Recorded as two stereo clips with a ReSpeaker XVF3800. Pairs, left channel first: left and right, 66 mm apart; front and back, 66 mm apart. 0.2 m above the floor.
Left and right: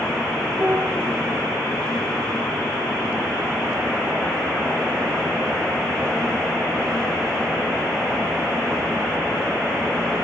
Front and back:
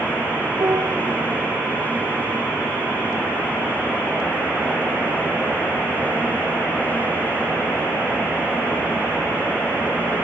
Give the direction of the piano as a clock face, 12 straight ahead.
5 o'clock.